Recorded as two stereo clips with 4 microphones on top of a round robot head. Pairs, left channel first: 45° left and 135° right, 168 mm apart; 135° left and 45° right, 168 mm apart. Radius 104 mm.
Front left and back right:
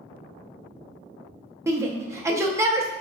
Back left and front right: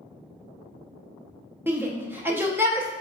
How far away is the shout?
About 0.6 m.